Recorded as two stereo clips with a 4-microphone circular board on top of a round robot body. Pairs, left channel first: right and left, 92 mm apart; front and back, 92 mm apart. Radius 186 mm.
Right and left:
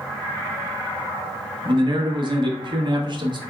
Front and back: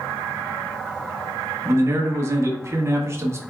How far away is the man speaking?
About 1.1 m.